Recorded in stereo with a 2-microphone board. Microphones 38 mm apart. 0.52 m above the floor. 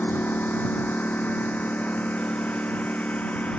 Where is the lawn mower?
55° left (ahead or behind); by 3.6 s 40° left (ahead or behind).